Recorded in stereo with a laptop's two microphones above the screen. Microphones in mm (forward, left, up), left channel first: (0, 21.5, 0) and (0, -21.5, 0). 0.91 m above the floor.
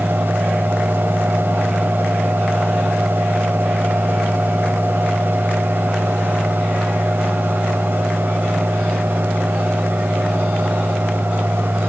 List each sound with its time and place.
0.0 s a fan: 60° right (ahead or behind), 1.1 m